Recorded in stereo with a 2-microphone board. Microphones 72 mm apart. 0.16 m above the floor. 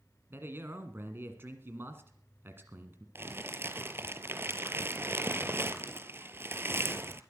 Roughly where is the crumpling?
Right.